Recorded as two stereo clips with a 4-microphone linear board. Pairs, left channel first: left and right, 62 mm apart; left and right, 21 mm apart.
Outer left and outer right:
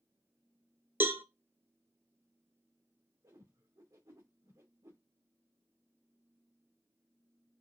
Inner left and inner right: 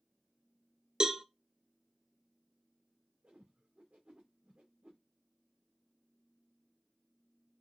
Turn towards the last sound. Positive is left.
turn(degrees=-70)  # may be behind; listen again after turning